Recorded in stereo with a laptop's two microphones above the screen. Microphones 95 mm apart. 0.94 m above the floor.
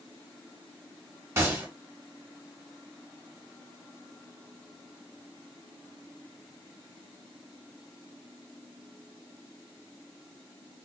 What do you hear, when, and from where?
1.4 s a gunshot: 25° right (ahead or behind), 1.0 m